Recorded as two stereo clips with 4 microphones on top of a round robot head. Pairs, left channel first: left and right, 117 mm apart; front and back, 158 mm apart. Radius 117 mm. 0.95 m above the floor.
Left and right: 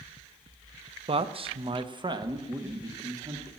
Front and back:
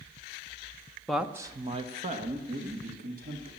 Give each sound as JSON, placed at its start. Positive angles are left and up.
{"t": 1.1, "sound": "a man speaking", "azimuth_deg": -90, "distance_m": 0.8}